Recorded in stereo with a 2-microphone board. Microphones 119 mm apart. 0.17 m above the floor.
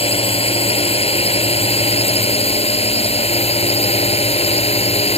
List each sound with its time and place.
0.0 s a drone: 60° left (ahead or behind); by 5.2 s 65° left (ahead or behind)